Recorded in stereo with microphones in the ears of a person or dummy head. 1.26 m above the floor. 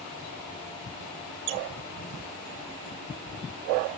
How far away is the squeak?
About 0.7 m.